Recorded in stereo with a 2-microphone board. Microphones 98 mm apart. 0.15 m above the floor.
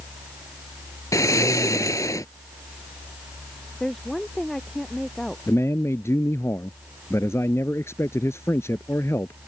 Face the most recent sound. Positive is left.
turn(degrees=25)  # may be behind; listen again after turning